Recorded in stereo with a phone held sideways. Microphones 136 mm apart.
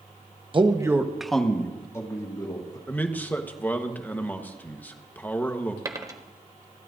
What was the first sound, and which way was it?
A man speaking, 40° right (ahead or behind).